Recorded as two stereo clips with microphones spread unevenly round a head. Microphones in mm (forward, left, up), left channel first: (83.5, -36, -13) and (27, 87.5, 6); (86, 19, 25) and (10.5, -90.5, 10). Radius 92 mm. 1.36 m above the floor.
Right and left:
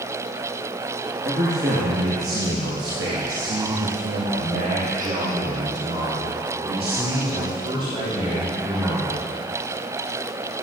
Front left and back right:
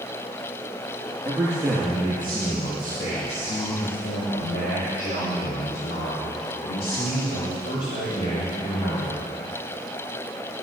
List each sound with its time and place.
1.2 s a man speaking: 155° left, 2 m; by 9.2 s 60° left, 5.5 m